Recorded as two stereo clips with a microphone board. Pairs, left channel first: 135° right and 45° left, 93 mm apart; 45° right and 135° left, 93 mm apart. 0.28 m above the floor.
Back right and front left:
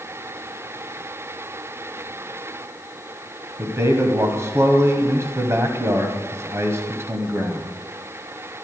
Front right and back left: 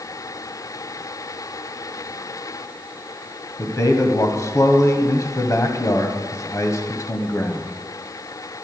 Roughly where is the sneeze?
No sneeze in this recording.